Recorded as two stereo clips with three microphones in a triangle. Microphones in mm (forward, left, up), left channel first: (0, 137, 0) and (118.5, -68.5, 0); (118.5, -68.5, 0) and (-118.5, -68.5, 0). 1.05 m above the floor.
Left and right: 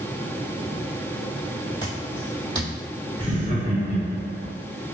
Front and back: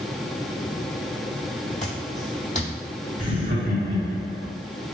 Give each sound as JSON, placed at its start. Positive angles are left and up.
{"t": 1.8, "sound": "footsteps", "azimuth_deg": 50, "distance_m": 1.7}
{"t": 3.2, "sound": "laughter", "azimuth_deg": 175, "distance_m": 2.0}